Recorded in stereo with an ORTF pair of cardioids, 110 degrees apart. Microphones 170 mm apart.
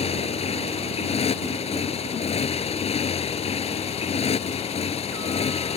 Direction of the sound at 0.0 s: 40° left.